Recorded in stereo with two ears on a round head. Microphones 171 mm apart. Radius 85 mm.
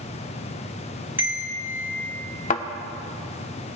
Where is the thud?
40° left (ahead or behind), 0.8 m.